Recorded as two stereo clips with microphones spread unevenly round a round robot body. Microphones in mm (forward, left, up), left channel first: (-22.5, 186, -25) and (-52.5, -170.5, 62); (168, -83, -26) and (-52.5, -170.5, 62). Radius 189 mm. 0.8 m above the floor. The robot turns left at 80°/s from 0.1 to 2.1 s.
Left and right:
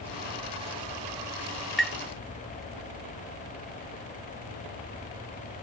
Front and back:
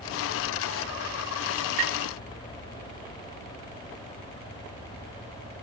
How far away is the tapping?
About 0.9 m.